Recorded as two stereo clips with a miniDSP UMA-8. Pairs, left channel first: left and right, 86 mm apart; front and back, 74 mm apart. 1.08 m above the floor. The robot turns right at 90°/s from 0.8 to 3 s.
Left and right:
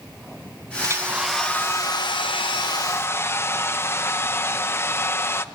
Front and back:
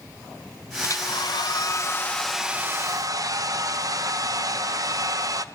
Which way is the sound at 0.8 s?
45° right.